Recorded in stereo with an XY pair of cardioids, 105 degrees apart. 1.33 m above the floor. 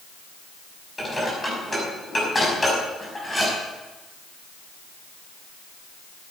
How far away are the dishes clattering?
About 6 m.